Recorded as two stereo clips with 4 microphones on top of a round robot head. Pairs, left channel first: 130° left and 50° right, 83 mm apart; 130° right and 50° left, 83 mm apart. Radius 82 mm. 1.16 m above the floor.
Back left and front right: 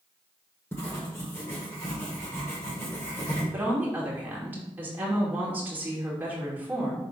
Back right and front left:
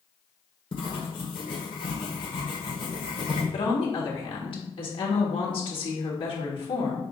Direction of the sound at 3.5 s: 120° right.